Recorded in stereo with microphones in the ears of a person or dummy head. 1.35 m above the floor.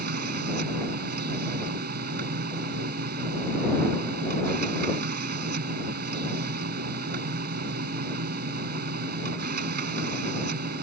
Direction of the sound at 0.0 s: 55° right (ahead or behind).